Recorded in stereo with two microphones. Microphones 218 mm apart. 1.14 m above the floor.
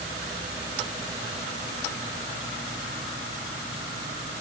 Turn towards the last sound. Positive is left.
No sound to turn to.